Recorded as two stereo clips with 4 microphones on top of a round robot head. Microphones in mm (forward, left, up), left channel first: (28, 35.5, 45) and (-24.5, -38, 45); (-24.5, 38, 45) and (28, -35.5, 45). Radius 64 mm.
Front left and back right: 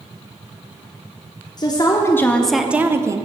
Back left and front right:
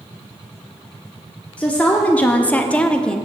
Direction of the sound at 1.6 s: 55° left.